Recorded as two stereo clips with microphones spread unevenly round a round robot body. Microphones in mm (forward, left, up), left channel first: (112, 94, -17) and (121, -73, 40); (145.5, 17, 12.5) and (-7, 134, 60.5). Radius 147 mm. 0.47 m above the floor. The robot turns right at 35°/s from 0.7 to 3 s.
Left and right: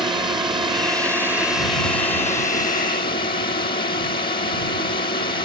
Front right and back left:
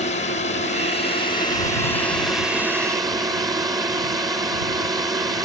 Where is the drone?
15° right; by 5.5 s 65° left.